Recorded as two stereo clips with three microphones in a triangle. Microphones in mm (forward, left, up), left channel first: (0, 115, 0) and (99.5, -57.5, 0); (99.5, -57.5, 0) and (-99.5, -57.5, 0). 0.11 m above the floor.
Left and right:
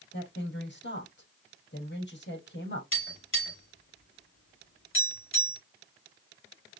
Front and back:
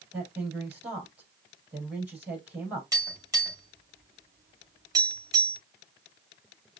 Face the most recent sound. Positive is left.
turn(degrees=105)